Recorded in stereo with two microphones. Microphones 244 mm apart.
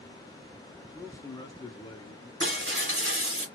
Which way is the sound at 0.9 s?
10° left (ahead or behind).